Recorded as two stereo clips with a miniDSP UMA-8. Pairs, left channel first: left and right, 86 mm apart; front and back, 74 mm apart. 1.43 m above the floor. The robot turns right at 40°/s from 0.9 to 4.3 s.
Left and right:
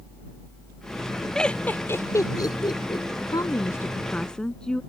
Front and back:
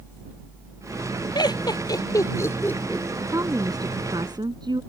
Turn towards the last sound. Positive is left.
turn(degrees=170)